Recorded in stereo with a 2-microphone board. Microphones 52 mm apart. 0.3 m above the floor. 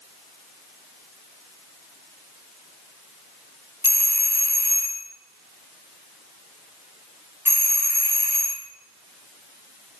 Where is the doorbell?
50° right (ahead or behind), 2.5 m.